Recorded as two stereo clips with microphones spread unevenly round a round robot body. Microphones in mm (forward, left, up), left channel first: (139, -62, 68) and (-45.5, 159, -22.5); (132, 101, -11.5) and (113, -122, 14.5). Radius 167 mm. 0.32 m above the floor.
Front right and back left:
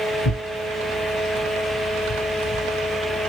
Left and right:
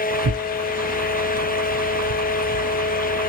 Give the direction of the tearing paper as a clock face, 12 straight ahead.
3 o'clock.